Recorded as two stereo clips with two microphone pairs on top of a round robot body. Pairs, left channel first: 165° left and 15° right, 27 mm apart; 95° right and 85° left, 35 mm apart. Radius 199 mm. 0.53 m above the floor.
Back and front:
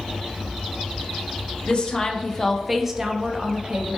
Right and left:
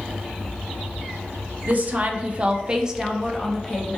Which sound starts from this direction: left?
A woman speaking, at 1.7 s.